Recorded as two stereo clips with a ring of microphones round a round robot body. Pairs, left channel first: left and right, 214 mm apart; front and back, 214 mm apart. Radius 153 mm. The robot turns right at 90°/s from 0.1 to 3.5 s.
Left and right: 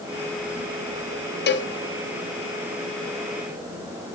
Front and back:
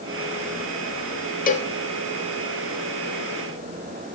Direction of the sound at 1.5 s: 50° left.